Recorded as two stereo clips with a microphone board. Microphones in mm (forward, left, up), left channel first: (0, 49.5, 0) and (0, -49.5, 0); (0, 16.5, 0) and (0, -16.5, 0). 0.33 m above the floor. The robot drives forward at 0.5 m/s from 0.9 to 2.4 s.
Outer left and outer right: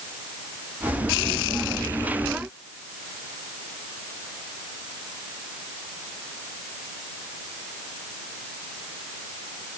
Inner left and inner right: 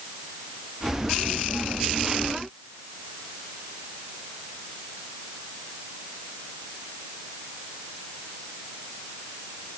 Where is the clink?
No clink in this recording.